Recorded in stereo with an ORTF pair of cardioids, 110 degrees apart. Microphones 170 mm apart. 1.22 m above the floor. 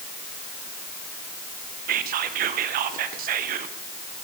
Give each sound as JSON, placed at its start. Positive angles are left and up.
{"t": 1.9, "sound": "whispering", "azimuth_deg": -60, "distance_m": 0.7}